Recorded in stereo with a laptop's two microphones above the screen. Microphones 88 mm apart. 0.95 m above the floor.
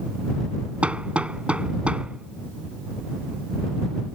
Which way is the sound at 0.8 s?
15° right (ahead or behind).